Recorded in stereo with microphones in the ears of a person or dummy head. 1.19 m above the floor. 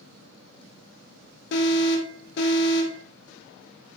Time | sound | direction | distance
1.5 | an alarm | 65° left (ahead or behind) | 3 m